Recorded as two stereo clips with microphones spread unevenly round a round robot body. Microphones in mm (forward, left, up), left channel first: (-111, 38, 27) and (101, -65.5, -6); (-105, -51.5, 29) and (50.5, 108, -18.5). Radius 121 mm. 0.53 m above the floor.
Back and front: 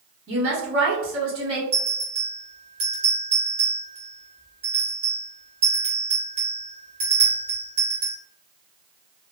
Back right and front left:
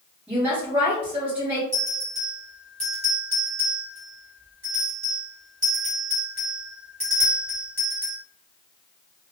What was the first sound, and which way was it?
A woman speaking, 30° right.